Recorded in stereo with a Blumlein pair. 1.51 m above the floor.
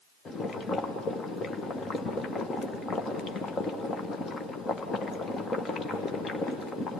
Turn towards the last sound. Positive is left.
turn(degrees=20)